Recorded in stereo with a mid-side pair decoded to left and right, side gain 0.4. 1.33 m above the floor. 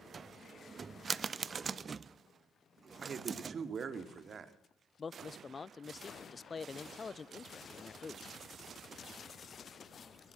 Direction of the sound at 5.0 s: 40° left.